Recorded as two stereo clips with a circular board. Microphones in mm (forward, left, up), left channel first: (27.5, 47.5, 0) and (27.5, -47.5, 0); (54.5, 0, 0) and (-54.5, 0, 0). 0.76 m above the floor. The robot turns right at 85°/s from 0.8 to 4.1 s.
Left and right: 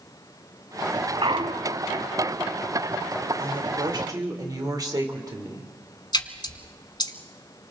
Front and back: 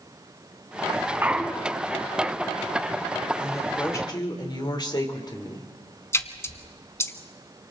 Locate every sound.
1.2 s a clunk: 110° right, 1.1 m; by 1.9 s 55° right, 1.1 m
3.4 s a woman speaking: 105° right, 3 m; by 5.7 s 45° right, 3 m
6.1 s a splash: 60° left, 1.1 m